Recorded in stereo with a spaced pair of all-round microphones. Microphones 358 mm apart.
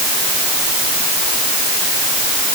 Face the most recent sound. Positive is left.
No sound to turn to.